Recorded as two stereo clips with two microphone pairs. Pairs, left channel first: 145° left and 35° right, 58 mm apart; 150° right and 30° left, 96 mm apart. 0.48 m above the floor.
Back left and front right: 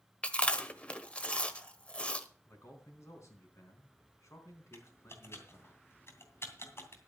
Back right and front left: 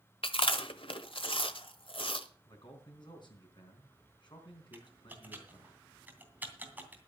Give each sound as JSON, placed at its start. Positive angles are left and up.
{"t": 0.2, "sound": "chewing", "azimuth_deg": -145, "distance_m": 1.2}
{"t": 2.5, "sound": "a man speaking", "azimuth_deg": 180, "distance_m": 4.0}
{"t": 4.7, "sound": "typing on a keyboard", "azimuth_deg": 105, "distance_m": 2.5}